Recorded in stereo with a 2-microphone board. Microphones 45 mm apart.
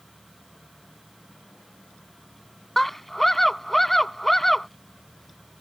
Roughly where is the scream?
Centre.